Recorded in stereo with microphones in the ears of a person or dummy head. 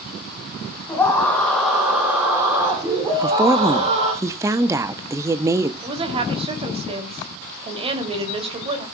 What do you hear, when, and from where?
0.9 s a scream: 10° left (ahead or behind), 2.5 m; by 4.1 s 35° right (ahead or behind), 3 m
3.1 s a woman speaking: 15° right (ahead or behind), 0.7 m
5.8 s a woman speaking: 30° right (ahead or behind), 3 m